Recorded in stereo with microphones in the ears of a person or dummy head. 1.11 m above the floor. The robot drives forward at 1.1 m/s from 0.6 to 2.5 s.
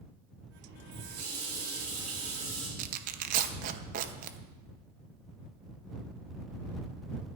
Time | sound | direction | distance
0.9 | a running tap | 65° right (ahead or behind) | 3 m
2.8 | tearing paper | 45° right (ahead or behind) | 0.9 m